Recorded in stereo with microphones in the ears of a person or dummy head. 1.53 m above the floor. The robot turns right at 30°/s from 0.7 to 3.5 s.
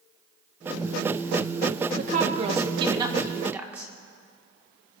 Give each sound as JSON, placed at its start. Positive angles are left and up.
{"t": 2.0, "sound": "a woman speaking", "azimuth_deg": -55, "distance_m": 1.1}